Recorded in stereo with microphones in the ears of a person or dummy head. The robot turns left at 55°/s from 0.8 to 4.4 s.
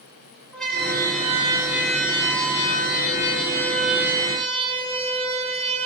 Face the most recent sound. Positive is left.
turn(degrees=-35)  # may be behind; listen again after turning